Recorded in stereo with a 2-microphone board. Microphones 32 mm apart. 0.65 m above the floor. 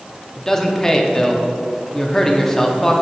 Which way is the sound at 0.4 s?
15° left (ahead or behind).